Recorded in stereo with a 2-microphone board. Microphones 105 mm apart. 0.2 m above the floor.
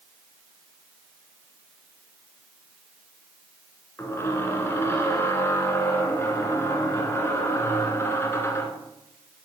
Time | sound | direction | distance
4.0 | a squeak | 25° left (ahead or behind) | 1.8 m